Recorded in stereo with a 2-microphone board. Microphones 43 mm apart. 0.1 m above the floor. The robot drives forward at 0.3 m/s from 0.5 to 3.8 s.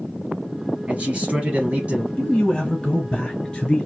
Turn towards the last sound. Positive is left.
turn(degrees=15)  # may be behind; listen again after turning